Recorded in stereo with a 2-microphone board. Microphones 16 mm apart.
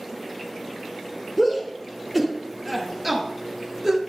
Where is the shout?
10° left (ahead or behind), 3 m; by 4.0 s 30° right (ahead or behind), 2 m.